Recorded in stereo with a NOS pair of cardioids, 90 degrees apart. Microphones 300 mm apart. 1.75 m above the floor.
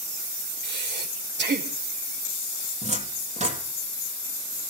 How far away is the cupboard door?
About 3.5 m.